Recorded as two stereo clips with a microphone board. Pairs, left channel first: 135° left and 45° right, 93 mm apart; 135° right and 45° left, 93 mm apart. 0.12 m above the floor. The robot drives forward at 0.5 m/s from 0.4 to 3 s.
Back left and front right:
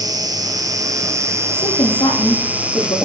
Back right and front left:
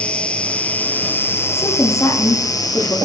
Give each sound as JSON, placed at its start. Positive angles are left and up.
{"t": 0.0, "sound": "an insect", "azimuth_deg": -65, "distance_m": 1.9}
{"t": 1.5, "sound": "a woman speaking", "azimuth_deg": 170, "distance_m": 7.0}